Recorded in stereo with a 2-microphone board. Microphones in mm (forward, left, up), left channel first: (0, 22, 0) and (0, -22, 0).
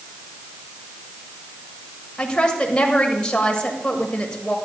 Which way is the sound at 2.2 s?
20° left (ahead or behind).